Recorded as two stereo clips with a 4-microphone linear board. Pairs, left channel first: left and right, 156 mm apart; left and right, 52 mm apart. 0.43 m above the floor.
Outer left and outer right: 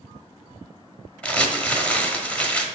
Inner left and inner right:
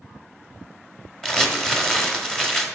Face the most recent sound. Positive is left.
turn(degrees=10)  # may be behind; listen again after turning